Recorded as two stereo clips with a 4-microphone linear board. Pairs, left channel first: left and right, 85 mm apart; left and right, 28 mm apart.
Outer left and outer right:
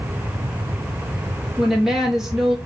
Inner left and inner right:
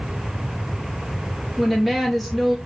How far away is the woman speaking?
About 1.8 m.